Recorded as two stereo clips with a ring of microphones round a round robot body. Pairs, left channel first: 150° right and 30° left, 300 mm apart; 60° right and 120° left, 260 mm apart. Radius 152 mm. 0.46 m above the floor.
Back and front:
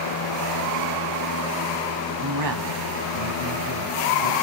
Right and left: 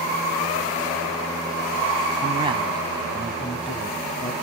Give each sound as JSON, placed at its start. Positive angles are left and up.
{"t": 2.2, "sound": "a man speaking", "azimuth_deg": 50, "distance_m": 3.0}